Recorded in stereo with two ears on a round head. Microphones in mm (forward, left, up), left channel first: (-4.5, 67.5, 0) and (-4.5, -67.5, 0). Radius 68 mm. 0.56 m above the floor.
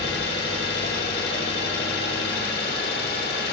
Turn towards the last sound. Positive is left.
turn(degrees=75)  # may be behind; listen again after turning